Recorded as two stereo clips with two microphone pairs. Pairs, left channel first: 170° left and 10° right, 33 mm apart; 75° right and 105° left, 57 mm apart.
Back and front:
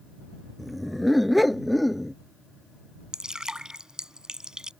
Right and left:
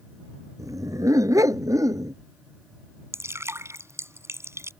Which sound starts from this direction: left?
A dog barking, at 0.6 s.